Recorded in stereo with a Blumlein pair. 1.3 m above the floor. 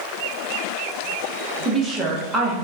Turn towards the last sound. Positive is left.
turn(degrees=-15)